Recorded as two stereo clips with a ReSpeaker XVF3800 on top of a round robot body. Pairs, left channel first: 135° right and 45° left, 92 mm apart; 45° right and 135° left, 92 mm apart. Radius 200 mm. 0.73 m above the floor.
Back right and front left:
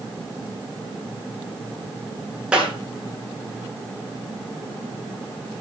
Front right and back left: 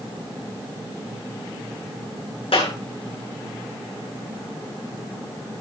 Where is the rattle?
I don't hear a rattle.